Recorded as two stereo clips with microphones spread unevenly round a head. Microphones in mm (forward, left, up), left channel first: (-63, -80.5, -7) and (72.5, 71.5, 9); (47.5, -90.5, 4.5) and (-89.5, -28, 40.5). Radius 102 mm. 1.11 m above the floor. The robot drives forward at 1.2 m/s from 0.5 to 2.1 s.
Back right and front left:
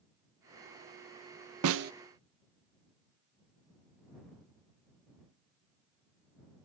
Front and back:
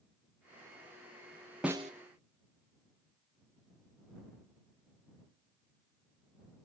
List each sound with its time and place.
1.6 s a snare drum: 70° left, 0.6 m; by 1.9 s 105° left, 0.5 m